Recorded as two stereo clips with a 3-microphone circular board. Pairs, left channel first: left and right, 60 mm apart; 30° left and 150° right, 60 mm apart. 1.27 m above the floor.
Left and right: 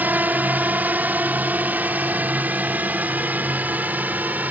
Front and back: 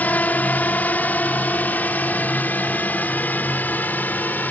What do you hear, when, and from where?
0.0 s a drone: 30° right